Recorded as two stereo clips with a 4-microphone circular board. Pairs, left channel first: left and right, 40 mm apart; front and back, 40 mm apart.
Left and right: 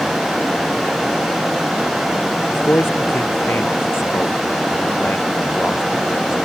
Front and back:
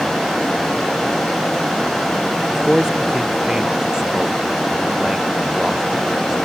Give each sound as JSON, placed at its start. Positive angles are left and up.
{"t": 2.5, "sound": "a man speaking", "azimuth_deg": 105}